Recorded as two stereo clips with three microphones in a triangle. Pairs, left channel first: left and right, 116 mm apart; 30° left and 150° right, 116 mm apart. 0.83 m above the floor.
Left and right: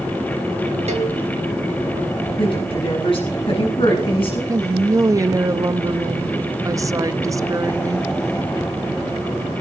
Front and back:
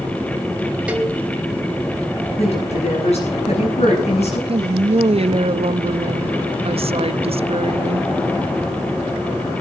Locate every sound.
0.9 s a cowbell: 70° right, 3 m
2.4 s a woman speaking: 50° left, 9 m
4.5 s a woman speaking: 145° right, 0.7 m